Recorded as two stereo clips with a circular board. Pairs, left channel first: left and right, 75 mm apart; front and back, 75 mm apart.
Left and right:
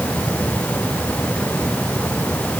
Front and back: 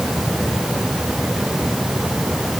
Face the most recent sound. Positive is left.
No sound to turn to.